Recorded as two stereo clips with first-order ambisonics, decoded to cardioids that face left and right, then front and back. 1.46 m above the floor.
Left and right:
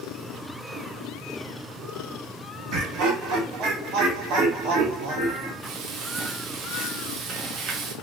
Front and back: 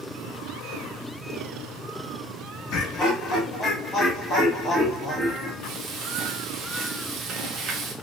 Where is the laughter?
45° right, 1.1 m; by 5.5 s 90° right, 2.5 m.